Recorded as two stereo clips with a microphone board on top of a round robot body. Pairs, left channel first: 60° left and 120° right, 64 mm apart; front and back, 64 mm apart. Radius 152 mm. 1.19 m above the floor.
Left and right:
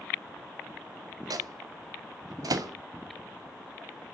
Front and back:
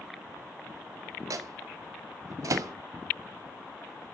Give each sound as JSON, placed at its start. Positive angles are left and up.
{"t": 1.3, "sound": "a microwave", "azimuth_deg": -145, "distance_m": 1.3}